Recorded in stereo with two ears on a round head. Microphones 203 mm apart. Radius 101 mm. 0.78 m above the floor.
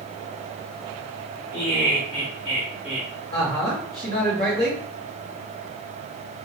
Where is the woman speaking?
25° left (ahead or behind), 2.0 m.